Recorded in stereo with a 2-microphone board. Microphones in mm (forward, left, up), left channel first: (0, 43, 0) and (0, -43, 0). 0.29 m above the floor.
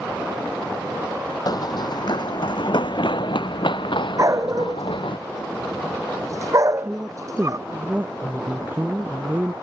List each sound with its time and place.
1.5 s running footsteps: 50° left (ahead or behind); by 5.2 s 70° left (ahead or behind)
4.2 s a dog barking: 40° right (ahead or behind)
6.8 s a woman speaking: 20° right (ahead or behind)